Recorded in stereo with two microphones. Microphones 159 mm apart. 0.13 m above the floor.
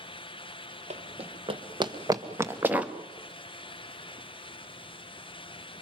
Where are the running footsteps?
45° right (ahead or behind), 1.9 m; by 2.9 s 5° right (ahead or behind), 1.7 m.